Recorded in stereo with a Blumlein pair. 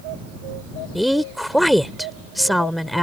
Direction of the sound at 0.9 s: Straight ahead.